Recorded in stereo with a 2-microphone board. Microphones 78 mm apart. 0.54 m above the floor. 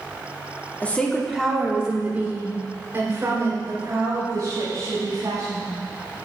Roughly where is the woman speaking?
Left.